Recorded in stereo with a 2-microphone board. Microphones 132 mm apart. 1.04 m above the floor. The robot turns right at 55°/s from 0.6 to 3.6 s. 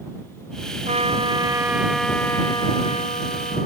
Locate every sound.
0.9 s a trumpet: 60° right; by 3.7 s 90° left